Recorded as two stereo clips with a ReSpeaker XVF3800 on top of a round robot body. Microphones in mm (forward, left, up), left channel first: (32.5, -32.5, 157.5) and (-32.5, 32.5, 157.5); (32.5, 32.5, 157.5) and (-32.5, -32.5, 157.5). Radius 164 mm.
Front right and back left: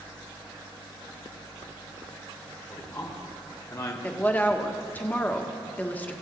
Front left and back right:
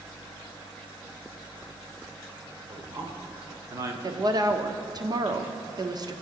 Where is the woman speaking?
110° right, 1.2 m.